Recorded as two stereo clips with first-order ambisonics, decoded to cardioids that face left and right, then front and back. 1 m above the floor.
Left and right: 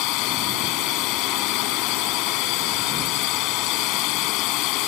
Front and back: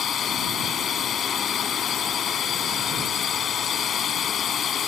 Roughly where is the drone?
Ahead left.